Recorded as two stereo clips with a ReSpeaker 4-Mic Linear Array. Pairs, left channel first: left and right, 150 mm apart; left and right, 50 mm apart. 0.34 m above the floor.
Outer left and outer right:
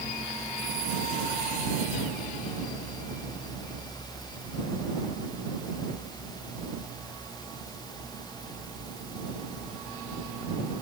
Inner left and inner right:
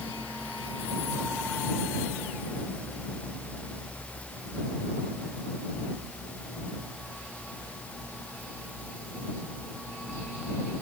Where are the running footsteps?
I don't hear running footsteps.